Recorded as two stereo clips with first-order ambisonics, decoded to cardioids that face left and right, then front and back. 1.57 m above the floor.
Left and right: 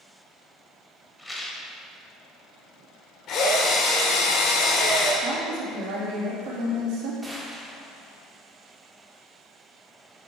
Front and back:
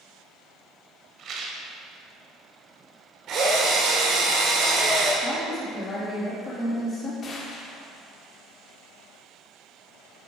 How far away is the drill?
About 2 m.